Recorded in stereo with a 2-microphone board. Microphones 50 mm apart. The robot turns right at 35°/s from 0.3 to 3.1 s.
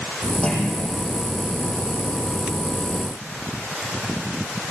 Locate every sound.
0.4 s a clunk: 15° left (ahead or behind), 8.5 m; by 0.9 s centre (ahead or behind), 8.5 m